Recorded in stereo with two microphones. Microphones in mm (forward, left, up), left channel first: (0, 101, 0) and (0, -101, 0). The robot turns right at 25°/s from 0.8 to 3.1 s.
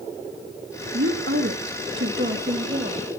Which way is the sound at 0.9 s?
90° right.